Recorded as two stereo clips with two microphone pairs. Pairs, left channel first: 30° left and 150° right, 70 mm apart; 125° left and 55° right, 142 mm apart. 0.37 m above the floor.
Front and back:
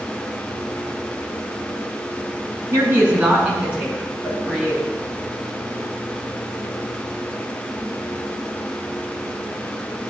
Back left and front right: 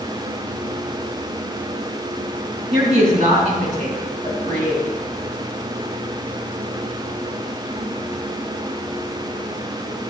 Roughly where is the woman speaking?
Right.